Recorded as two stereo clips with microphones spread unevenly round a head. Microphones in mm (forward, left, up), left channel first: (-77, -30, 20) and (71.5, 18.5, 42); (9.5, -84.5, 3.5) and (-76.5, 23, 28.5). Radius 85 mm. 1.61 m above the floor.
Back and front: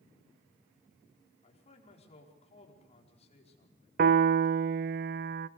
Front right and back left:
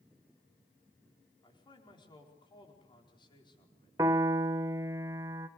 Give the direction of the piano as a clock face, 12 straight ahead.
10 o'clock.